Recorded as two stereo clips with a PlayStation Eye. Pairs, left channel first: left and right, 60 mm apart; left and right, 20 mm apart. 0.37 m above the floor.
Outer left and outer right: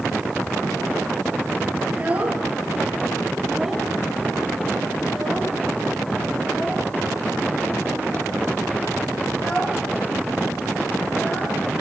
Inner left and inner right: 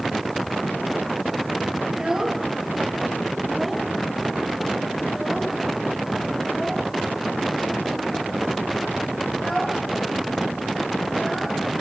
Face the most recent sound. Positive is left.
turn(degrees=25)  # may be behind; listen again after turning